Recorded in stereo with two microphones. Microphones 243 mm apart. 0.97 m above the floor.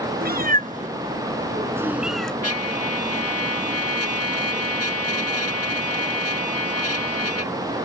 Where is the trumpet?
65° left (ahead or behind).